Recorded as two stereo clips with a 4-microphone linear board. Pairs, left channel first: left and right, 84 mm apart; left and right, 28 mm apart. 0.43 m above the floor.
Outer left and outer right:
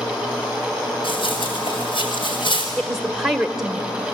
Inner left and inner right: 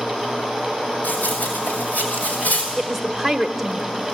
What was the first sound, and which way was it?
Running footsteps, 75° left (ahead or behind).